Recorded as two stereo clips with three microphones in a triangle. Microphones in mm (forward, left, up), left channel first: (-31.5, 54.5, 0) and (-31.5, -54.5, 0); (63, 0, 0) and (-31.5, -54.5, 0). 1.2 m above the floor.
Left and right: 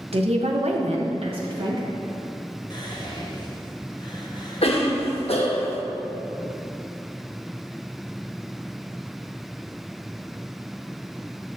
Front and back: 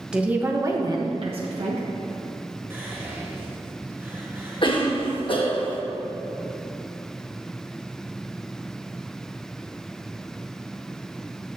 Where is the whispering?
140° left, 1.5 m.